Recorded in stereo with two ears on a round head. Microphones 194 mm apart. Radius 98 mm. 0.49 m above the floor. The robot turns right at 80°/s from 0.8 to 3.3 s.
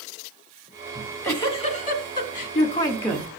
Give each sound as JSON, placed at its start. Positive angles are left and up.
{"t": 0.9, "sound": "a giggle", "azimuth_deg": -5, "distance_m": 1.5}